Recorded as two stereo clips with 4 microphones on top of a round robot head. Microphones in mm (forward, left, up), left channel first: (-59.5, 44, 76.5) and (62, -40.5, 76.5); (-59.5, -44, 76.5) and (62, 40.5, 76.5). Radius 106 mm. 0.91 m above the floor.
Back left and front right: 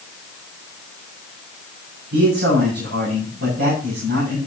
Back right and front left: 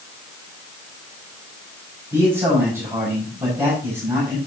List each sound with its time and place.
2.1 s a man speaking: 40° right, 6 m